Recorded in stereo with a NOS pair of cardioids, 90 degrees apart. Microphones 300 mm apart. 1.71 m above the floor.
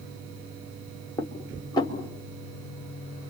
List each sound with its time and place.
1.2 s dishes clattering: 15° left, 3.5 m